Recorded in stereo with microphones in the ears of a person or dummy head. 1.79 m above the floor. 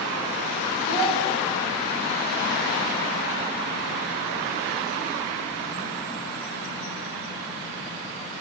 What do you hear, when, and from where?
0.9 s a child speaking: 55° left (ahead or behind), 1.7 m